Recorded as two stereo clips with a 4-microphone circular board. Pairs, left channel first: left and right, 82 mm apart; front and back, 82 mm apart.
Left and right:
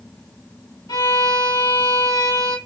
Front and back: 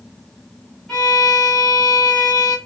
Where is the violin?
85° left, 1.6 m.